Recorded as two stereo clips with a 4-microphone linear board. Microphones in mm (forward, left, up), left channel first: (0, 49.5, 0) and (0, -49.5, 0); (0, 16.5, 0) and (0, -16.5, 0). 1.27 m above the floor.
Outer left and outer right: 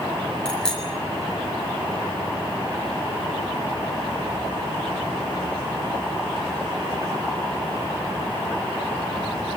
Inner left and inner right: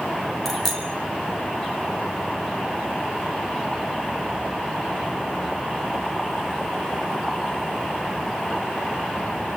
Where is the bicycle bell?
5° left (ahead or behind), 8 m.